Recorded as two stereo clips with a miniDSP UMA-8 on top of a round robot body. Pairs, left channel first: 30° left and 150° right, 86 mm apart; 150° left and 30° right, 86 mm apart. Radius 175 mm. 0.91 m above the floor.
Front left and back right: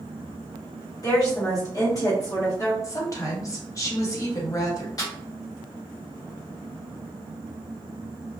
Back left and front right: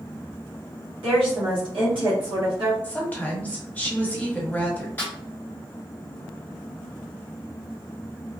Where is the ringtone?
No ringtone in this recording.